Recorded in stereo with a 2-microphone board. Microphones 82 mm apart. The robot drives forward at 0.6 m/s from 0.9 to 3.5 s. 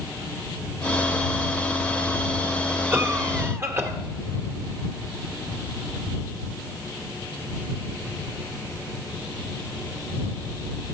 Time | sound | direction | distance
2.9 | a cough | 30° right (ahead or behind) | 2 m